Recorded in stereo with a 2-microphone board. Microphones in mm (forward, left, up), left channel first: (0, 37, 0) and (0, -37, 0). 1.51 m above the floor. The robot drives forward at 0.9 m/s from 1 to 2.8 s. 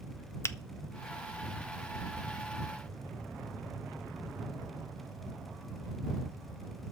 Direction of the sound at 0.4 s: 35° left (ahead or behind).